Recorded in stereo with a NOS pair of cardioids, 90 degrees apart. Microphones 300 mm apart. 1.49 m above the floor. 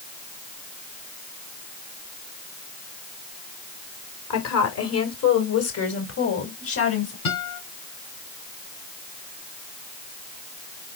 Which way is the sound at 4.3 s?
60° left.